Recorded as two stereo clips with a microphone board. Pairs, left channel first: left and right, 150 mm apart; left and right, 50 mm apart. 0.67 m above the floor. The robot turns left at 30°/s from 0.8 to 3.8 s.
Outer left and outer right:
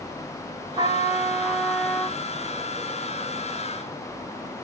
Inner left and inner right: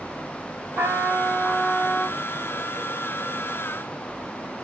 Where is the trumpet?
150° right, 1.6 m; by 2.2 s 165° left, 1.6 m.